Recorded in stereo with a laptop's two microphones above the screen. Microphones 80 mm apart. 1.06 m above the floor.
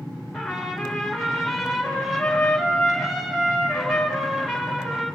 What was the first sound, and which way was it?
A trumpet, centre (ahead or behind).